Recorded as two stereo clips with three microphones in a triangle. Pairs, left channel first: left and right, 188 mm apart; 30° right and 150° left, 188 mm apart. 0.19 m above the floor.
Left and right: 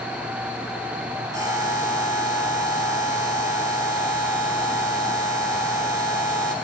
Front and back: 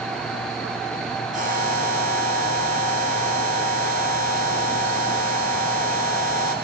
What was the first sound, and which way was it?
A buzzer, 165° right.